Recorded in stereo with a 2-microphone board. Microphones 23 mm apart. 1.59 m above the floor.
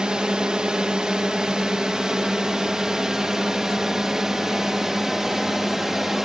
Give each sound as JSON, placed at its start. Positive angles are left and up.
{"t": 0.0, "sound": "a drone", "side_deg": -40}